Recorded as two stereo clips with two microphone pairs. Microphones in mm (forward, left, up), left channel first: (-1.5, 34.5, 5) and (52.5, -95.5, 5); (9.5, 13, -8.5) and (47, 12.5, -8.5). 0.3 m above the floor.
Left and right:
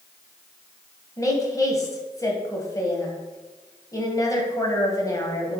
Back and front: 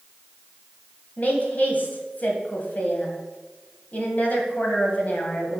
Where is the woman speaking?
170° left, 1.6 m.